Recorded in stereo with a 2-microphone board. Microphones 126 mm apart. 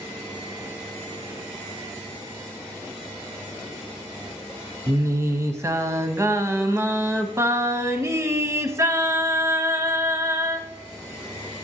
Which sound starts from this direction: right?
Singing, at 4.9 s.